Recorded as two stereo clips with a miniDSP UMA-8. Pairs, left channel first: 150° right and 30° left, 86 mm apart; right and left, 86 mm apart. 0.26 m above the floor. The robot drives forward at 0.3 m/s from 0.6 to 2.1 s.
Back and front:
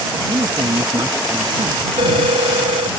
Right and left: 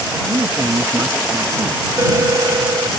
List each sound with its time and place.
0.3 s a man speaking: 40° left; by 1.8 s 45° left
2.0 s a phone ringing: 30° left; by 2.9 s 35° left